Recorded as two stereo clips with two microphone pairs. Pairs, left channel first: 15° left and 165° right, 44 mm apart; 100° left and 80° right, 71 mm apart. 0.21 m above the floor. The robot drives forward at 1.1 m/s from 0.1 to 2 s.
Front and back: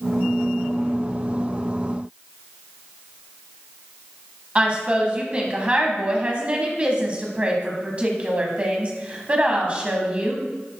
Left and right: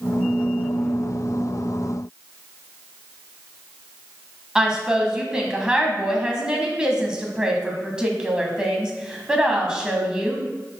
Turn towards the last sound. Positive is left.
turn(degrees=-145)